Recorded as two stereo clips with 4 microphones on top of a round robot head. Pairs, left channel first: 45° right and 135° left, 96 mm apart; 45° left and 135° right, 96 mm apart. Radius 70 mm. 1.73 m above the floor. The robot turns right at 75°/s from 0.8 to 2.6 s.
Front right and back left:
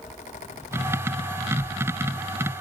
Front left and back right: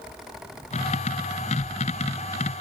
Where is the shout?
No shout in this recording.